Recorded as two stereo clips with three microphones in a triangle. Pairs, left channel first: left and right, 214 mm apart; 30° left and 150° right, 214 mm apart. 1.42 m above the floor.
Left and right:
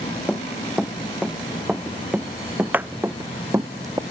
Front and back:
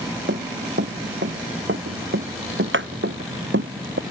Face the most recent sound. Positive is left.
turn(degrees=-165)